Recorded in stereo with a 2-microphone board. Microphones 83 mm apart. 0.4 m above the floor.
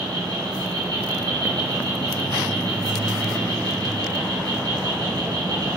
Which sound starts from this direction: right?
An insect, at 0.0 s.